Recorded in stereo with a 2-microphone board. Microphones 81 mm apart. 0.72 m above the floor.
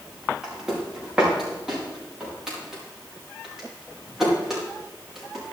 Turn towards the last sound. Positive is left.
turn(degrees=-5)  # may be behind; listen again after turning